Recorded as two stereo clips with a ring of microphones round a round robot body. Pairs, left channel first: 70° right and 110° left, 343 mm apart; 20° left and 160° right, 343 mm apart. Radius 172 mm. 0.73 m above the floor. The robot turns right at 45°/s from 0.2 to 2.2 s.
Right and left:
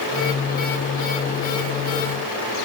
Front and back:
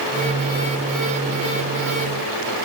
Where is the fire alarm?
I don't hear a fire alarm.